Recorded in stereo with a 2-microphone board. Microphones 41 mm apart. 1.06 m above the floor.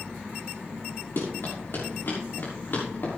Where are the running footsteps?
70° left (ahead or behind), 6 m; by 3.2 s 55° left (ahead or behind), 6 m.